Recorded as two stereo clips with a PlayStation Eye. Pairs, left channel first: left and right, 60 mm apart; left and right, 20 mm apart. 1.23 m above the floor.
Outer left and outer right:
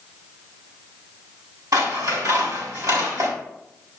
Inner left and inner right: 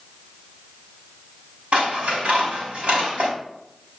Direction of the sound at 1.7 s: 80° right.